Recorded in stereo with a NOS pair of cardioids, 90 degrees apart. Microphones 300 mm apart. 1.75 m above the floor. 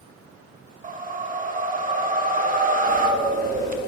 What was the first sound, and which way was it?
A whoosh, 30° right.